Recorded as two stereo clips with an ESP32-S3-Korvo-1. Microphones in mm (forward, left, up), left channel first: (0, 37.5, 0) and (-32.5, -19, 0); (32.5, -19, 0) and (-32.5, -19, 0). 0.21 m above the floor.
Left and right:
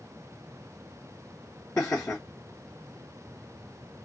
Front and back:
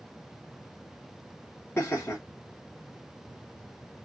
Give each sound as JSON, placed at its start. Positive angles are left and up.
{"t": 1.8, "sound": "laughter", "azimuth_deg": 35, "distance_m": 1.3}